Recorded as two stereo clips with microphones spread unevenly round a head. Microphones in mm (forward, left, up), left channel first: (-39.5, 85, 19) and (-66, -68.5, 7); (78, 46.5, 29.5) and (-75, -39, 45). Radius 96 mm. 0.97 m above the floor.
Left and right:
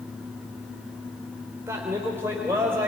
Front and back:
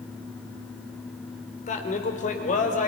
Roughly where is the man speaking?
Ahead.